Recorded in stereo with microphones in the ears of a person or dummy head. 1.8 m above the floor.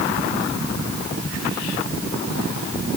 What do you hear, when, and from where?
Only background noise.